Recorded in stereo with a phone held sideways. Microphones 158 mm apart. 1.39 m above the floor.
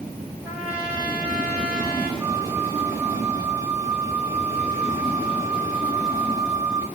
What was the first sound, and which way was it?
A trumpet, 10° right (ahead or behind).